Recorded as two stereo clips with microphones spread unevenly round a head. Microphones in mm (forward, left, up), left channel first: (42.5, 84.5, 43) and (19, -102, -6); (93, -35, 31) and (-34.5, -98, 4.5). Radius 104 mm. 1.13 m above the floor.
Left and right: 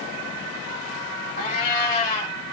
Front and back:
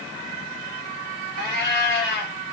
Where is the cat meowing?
35° left, 1.7 m.